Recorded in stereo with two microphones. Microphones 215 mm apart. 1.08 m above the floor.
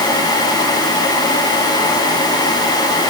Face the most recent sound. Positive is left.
No sound to turn to.